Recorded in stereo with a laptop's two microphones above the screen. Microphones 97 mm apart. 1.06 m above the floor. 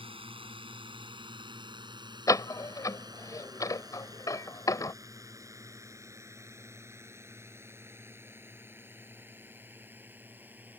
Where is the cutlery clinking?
I don't hear cutlery clinking.